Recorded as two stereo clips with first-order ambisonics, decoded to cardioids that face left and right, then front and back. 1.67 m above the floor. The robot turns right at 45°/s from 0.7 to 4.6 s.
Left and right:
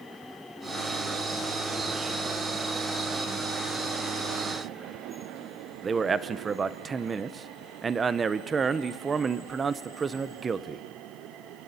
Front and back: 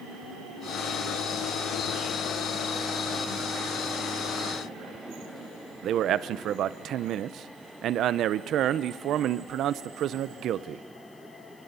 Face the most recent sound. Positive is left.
turn(degrees=-150)